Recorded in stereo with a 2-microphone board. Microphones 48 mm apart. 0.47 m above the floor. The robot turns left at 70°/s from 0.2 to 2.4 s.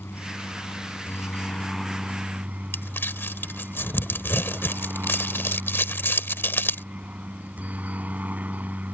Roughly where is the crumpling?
Left.